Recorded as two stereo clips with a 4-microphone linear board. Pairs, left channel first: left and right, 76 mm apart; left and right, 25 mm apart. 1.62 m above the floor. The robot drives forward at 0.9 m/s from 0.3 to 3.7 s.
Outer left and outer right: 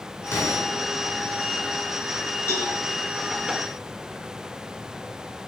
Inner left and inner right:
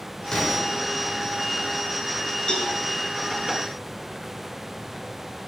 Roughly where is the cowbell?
Left.